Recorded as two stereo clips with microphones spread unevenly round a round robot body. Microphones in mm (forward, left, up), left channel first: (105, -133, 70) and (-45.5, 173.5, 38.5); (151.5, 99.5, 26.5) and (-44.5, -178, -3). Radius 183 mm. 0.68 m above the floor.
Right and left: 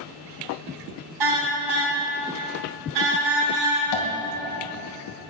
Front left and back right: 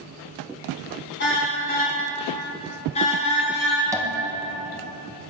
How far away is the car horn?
About 3.5 m.